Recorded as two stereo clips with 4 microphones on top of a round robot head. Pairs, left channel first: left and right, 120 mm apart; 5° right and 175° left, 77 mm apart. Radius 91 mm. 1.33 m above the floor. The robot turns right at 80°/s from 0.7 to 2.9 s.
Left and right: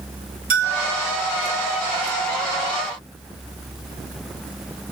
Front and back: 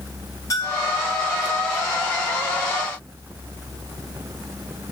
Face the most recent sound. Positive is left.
turn(degrees=105)